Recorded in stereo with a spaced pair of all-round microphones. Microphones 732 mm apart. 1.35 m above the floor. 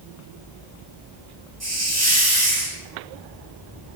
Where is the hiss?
20° right (ahead or behind), 1.1 m.